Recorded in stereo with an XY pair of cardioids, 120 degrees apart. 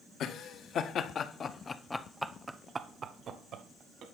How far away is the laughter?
About 2 m.